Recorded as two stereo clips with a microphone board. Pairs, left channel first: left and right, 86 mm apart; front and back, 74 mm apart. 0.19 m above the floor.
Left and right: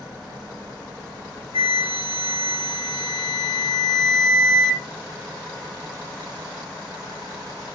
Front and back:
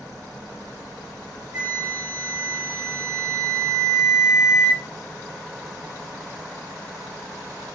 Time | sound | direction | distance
1.5 | a flute | 100° left | 0.7 m